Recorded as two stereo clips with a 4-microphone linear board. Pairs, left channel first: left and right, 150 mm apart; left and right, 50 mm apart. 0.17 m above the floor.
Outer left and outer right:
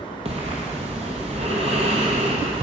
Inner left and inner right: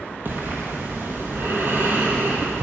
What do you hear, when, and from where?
0.2 s breathing: 45° right (ahead or behind), 1.2 m